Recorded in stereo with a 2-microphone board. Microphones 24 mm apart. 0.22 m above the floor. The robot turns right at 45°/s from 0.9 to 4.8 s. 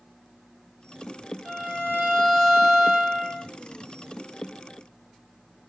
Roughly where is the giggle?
I don't hear a giggle.